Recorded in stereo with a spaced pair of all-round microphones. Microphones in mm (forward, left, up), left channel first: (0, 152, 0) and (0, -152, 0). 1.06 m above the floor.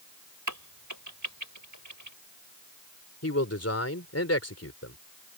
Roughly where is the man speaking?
Left.